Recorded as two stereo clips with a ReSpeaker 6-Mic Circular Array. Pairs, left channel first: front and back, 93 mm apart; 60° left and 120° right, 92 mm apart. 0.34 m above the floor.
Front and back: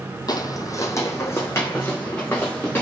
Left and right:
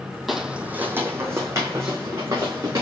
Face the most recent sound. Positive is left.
turn(degrees=-70)